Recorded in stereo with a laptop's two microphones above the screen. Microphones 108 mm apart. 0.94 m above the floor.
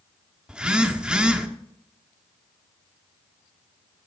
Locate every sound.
0.5 s a phone buzzing: 10° right (ahead or behind), 1.1 m